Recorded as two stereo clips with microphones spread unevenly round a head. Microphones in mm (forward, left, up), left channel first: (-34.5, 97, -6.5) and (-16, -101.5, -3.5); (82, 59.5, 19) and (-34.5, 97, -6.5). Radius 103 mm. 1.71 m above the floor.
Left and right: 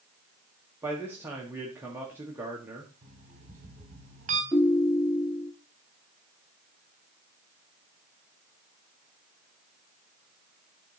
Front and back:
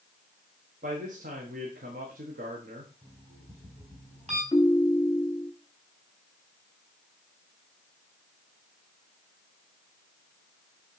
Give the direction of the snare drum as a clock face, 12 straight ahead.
No snare drum in this recording.